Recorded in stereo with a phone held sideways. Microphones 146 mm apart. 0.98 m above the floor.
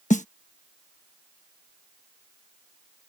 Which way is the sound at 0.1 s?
60° left (ahead or behind).